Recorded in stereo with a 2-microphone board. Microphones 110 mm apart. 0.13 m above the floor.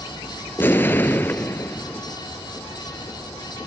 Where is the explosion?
20° left (ahead or behind), 0.5 m.